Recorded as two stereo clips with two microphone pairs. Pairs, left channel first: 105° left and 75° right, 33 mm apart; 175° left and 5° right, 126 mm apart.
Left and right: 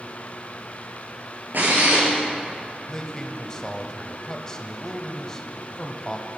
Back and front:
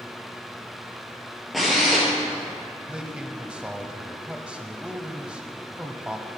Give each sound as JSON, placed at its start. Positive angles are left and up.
{"t": 1.5, "sound": "a drill", "azimuth_deg": -100, "distance_m": 3.5}
{"t": 2.9, "sound": "a man speaking", "azimuth_deg": 65, "distance_m": 1.0}